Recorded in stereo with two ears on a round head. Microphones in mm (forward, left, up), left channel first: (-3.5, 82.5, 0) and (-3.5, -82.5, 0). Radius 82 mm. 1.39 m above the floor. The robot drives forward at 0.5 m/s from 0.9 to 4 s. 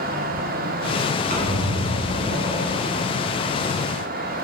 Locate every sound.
1.3 s a squeak: 40° right (ahead or behind), 1.2 m; by 3.1 s 30° right (ahead or behind), 1.6 m